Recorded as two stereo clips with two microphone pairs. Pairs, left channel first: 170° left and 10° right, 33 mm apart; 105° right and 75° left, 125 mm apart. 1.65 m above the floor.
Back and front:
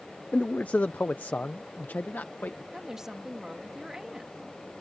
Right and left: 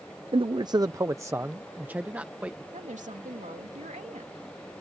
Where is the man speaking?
115° left; by 2.6 s 155° left.